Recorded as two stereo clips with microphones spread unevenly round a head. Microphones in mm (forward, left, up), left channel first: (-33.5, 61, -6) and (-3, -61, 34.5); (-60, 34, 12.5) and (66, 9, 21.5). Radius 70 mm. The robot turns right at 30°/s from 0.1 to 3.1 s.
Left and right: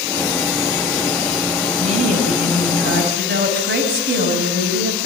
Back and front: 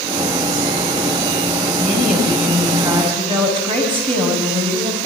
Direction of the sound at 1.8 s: 105° right.